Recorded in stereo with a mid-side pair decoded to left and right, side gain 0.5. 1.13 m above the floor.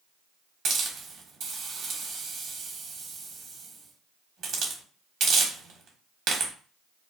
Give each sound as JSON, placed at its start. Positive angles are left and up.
{"t": 0.7, "sound": "a hiss", "azimuth_deg": -60, "distance_m": 1.0}